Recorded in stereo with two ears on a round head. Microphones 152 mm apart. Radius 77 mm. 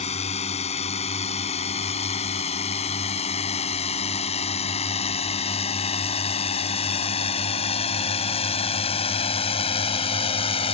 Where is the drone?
40° left (ahead or behind); by 10.7 s 35° left (ahead or behind).